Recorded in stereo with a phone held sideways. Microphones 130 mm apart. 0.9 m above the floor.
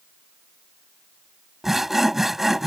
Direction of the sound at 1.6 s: Centre (ahead or behind).